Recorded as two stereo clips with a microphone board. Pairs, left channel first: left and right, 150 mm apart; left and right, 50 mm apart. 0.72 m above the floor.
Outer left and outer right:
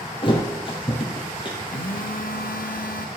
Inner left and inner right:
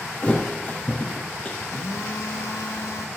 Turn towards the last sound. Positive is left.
turn(degrees=75)  # may be behind; listen again after turning